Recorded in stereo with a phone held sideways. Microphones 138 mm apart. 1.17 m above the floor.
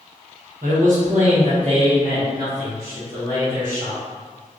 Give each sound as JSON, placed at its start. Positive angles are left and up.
{"t": 0.6, "sound": "a man speaking", "side_deg": -75, "distance_m": 0.9}